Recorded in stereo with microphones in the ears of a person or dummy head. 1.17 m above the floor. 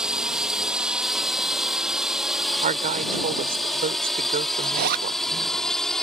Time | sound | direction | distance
0.0 | a drone | centre (ahead or behind) | ?
2.6 | a woman speaking | 40° right (ahead or behind) | ?
4.6 | a zipper | 55° right (ahead or behind) | ?